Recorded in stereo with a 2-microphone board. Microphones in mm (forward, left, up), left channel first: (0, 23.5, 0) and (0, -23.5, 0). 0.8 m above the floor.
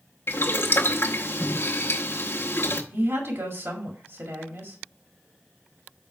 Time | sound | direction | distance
0.3 | boiling | 60° left (ahead or behind) | 0.8 m
2.9 | a woman speaking | 65° right (ahead or behind) | 1.9 m